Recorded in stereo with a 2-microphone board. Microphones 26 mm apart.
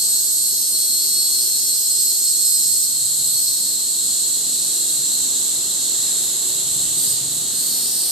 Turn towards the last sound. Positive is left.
turn(degrees=-20)  # may be behind; listen again after turning